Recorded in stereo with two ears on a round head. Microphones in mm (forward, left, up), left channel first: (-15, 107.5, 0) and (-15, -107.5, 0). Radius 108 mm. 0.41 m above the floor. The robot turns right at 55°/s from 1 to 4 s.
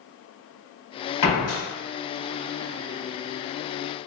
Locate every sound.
1.2 s a door slam: 65° left (ahead or behind), 1.8 m; by 1.6 s 45° left (ahead or behind), 1.8 m